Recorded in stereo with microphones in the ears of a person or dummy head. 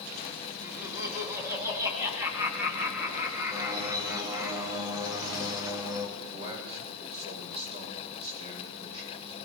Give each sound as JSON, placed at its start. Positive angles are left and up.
{"t": 0.6, "sound": "laughter", "side_deg": -15, "distance_m": 2.5}
{"t": 3.5, "sound": "a bird", "side_deg": -25, "distance_m": 2.0}
{"t": 6.2, "sound": "a man speaking", "side_deg": -35, "distance_m": 7.5}